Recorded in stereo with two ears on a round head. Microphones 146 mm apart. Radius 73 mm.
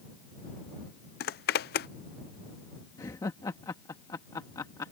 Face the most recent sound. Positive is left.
turn(degrees=20)  # may be behind; listen again after turning